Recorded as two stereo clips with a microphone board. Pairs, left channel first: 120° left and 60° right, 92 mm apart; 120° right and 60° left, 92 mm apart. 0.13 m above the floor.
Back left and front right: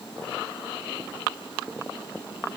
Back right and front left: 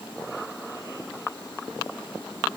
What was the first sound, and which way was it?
Only background noise.